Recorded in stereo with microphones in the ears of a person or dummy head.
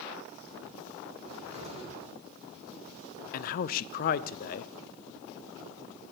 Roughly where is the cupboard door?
Right.